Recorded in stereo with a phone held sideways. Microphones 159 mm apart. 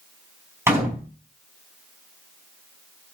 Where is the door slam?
15° right (ahead or behind), 4.5 m.